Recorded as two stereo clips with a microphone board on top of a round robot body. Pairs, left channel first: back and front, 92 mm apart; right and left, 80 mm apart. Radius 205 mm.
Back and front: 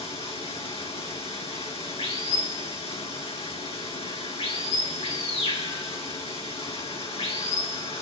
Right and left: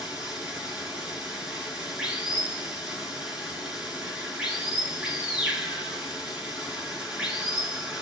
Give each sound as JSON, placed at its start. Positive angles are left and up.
{"t": 0.0, "sound": "running water", "azimuth_deg": 170, "distance_m": 8.5}